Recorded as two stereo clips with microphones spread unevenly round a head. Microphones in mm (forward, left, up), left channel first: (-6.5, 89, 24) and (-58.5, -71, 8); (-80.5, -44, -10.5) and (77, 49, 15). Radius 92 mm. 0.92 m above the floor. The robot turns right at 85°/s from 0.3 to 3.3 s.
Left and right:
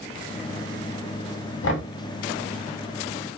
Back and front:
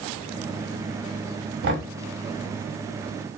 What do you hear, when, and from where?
1.6 s knocking: 60° left, 1.6 m; by 1.9 s 80° left, 1.6 m